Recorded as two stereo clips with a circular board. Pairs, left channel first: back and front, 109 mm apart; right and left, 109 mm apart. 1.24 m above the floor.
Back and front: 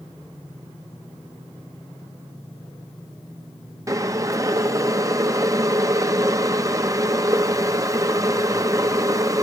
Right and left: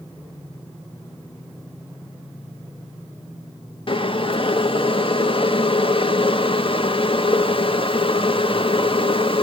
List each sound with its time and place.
3.9 s boiling: 55° right, 0.7 m